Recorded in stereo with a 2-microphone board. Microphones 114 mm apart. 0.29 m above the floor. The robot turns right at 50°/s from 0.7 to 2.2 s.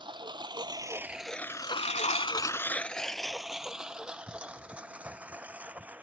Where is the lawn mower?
45° right (ahead or behind); by 6.0 s 15° right (ahead or behind).